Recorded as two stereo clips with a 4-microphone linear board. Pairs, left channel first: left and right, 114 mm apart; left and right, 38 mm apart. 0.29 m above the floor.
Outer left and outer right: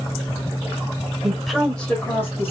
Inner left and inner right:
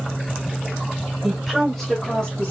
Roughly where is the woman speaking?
Centre.